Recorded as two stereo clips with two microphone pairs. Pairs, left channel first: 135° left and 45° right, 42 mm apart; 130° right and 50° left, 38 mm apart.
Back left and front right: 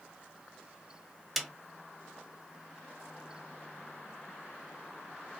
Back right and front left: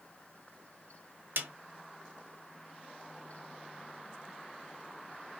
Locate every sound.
1.4 s a snare drum: 35° left, 0.6 m